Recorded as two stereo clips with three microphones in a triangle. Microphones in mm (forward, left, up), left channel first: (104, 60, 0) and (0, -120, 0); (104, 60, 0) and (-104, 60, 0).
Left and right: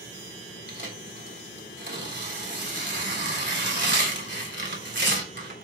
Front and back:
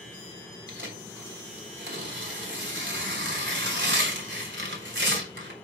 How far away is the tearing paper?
About 3.5 m.